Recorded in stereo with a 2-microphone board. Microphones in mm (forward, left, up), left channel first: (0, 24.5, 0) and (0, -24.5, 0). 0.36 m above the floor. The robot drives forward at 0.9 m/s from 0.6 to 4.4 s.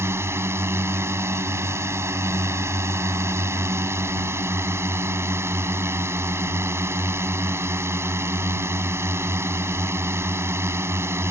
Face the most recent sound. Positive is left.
turn(degrees=-60)  # may be behind; listen again after turning